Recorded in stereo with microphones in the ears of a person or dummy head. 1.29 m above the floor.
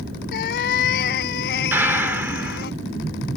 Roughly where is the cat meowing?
Left.